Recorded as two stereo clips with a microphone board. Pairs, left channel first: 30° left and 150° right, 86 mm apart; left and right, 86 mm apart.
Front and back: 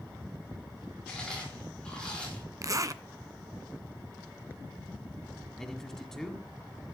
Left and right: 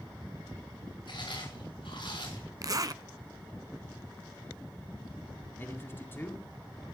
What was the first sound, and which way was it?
Chewing, 110° left.